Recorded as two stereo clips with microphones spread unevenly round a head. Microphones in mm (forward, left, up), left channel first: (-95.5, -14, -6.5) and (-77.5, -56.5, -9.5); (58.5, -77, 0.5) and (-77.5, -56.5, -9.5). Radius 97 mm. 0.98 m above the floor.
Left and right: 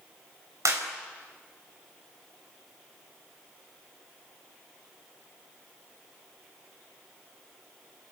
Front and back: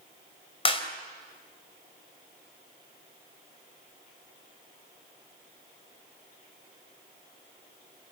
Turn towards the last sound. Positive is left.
turn(degrees=-55)